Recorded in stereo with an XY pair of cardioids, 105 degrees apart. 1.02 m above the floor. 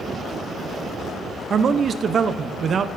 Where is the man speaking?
50° right, 0.5 m.